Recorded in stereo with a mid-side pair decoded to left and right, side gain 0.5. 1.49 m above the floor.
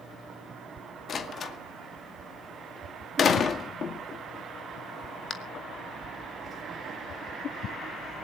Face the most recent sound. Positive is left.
turn(degrees=45)